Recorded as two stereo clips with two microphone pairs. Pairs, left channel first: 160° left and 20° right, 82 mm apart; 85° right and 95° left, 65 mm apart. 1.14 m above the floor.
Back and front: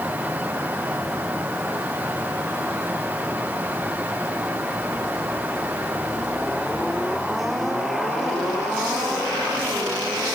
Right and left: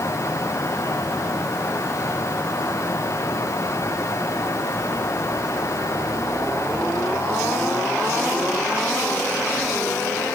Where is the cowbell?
I don't hear a cowbell.